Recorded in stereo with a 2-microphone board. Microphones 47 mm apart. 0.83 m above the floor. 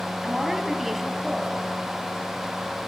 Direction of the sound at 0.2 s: 5° right (ahead or behind).